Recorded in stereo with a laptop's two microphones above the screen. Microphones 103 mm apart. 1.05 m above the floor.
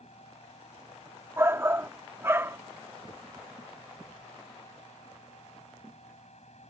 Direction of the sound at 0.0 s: 80° left.